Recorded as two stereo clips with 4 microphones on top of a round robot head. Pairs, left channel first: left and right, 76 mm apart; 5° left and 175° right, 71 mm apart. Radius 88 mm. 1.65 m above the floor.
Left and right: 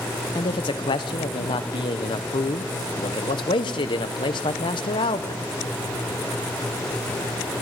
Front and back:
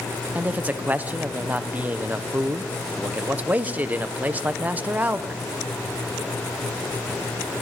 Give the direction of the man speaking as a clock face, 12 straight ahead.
8 o'clock.